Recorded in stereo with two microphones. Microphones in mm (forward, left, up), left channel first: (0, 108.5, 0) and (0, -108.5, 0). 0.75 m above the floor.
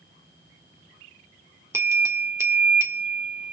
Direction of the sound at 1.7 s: 10° right (ahead or behind).